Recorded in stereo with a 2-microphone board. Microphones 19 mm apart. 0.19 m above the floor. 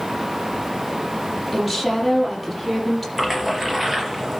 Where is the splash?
10° right (ahead or behind), 4 m.